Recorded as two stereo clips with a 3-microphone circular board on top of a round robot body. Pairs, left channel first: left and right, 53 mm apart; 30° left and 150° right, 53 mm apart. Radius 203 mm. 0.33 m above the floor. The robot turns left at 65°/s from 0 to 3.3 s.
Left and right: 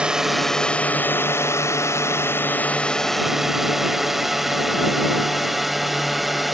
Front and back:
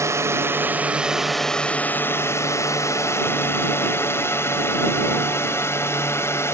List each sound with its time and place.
0.0 s a drone: 155° right; by 6.5 s straight ahead